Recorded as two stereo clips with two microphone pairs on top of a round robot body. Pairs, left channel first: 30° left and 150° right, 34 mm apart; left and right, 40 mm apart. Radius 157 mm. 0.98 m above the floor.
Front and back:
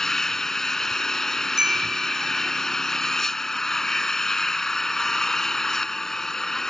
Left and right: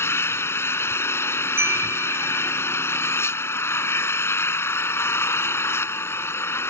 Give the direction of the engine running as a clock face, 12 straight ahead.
8 o'clock.